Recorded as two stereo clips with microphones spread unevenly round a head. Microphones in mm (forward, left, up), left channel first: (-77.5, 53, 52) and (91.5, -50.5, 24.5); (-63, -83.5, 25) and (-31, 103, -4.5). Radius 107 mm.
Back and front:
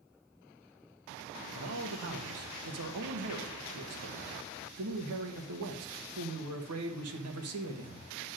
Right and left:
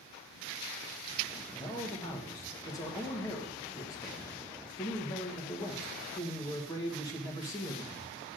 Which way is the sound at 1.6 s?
25° right.